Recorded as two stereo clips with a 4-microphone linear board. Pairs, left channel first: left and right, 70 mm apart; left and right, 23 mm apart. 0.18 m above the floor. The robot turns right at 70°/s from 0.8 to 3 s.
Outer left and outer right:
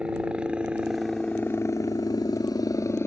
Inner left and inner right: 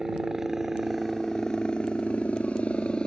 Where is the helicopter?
15° right; by 3.1 s 140° left.